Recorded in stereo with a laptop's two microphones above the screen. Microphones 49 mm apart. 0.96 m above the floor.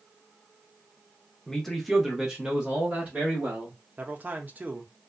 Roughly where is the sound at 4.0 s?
Right.